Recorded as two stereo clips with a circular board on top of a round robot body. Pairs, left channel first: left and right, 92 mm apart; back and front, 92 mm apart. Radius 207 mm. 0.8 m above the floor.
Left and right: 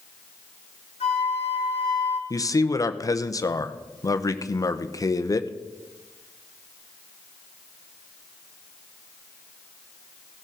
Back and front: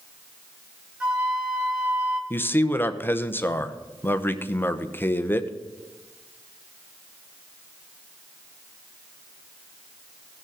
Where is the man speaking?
125° left, 0.9 m.